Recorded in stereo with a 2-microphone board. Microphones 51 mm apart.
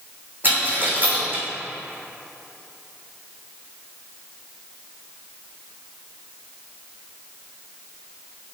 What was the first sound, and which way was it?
A dropped coin, 40° right (ahead or behind).